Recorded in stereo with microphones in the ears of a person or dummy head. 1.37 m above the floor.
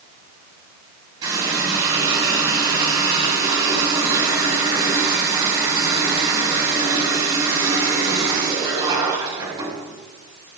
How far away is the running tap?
About 6 m.